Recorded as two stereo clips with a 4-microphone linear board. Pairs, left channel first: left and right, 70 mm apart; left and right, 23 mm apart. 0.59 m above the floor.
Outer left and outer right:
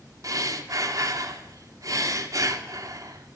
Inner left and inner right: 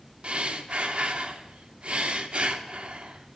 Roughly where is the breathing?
Right.